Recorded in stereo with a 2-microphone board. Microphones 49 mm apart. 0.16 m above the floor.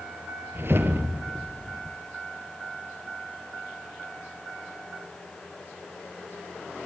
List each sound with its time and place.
0.6 s a whoosh: 55° right (ahead or behind), 2 m